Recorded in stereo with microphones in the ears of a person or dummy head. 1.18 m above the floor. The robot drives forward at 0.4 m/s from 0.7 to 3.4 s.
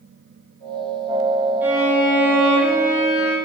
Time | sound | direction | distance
1.6 | a violin | 10° right (ahead or behind) | 0.8 m